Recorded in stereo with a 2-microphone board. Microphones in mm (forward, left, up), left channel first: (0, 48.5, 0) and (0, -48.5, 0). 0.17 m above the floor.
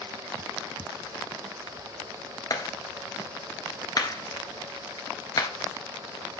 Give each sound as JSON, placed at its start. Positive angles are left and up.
{"t": 2.5, "sound": "a clap", "side_deg": 40, "distance_m": 1.7}